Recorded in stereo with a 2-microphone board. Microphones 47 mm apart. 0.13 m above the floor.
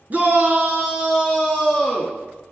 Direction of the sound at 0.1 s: 40° right (ahead or behind).